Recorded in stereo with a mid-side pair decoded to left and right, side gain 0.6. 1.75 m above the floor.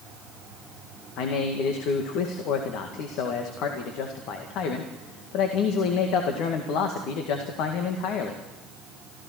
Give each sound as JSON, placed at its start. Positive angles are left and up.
{"t": 1.2, "sound": "a man speaking", "azimuth_deg": 70, "distance_m": 1.9}